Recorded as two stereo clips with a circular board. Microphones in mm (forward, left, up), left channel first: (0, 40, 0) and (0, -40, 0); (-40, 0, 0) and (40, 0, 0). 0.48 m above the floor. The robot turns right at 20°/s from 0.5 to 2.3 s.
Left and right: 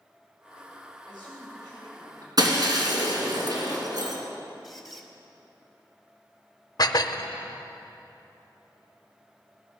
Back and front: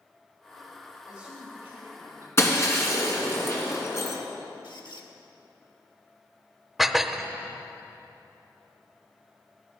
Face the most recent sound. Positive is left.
turn(degrees=90)